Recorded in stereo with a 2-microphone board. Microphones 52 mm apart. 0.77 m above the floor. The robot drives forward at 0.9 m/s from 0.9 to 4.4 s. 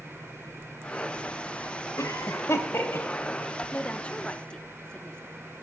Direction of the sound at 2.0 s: 65° left (ahead or behind).